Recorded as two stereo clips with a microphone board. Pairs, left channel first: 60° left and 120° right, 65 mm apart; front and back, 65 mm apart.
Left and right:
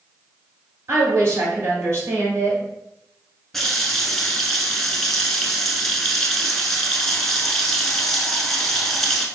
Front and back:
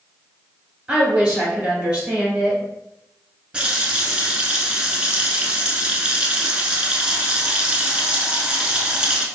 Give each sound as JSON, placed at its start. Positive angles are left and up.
{"t": 0.9, "sound": "a woman speaking", "azimuth_deg": -110, "distance_m": 2.0}
{"t": 3.5, "sound": "a running tap", "azimuth_deg": 140, "distance_m": 0.7}